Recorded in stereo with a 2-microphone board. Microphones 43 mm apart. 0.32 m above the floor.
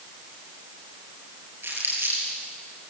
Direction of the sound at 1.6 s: 55° right (ahead or behind).